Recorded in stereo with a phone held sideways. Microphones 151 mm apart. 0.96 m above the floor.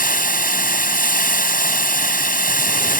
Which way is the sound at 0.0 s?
60° left (ahead or behind).